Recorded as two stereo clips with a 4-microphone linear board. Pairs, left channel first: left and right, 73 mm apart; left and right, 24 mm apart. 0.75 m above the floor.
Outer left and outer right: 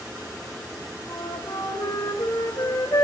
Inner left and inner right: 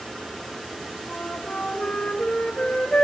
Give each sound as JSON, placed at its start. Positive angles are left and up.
{"t": 1.1, "sound": "a flute", "side_deg": 55, "distance_m": 3.5}